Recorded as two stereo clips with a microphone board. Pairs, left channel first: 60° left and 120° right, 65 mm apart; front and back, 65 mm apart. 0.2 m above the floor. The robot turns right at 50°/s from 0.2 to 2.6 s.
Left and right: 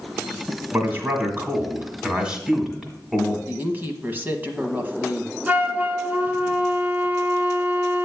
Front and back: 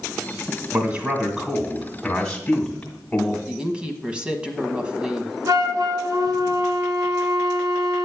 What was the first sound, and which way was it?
A man speaking, 145° right.